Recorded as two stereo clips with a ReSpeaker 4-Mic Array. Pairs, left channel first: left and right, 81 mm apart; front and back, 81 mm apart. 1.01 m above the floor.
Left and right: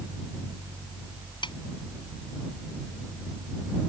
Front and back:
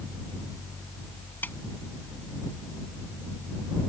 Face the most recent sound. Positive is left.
turn(degrees=65)